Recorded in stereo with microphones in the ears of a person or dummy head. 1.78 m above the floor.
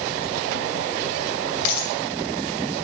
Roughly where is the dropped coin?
Left.